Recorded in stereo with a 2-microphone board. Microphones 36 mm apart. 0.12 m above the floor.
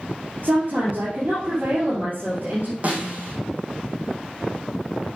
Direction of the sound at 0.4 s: 55° right (ahead or behind).